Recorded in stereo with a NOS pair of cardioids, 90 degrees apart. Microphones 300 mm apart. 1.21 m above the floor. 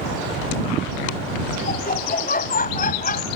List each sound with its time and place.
1.7 s laughter: 30° left